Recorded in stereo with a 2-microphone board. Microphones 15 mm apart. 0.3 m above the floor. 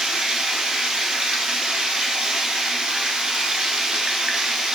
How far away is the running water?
About 0.8 m.